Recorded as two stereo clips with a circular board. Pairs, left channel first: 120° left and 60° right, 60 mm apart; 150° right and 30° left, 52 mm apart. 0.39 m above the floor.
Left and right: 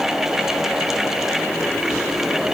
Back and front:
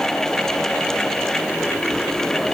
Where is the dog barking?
No dog barking in this recording.